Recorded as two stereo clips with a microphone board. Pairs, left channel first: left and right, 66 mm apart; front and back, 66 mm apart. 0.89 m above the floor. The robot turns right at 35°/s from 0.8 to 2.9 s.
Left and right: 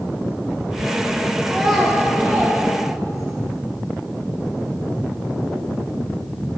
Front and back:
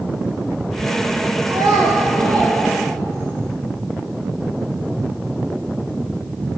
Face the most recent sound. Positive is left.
turn(degrees=-130)